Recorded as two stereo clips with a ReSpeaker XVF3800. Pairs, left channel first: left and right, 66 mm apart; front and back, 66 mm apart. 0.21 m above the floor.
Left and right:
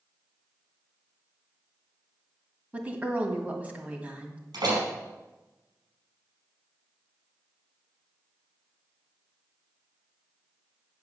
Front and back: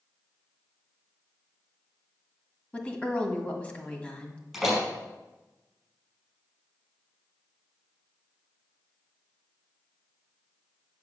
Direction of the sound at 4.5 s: 90° right.